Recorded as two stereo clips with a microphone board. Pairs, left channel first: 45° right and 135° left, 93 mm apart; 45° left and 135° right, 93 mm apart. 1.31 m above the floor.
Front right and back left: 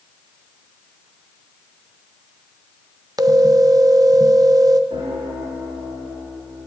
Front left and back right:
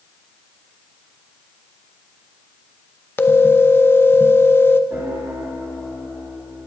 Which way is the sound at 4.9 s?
155° left.